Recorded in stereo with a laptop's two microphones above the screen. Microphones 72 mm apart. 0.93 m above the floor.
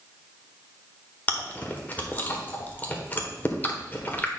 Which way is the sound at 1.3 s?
25° left (ahead or behind).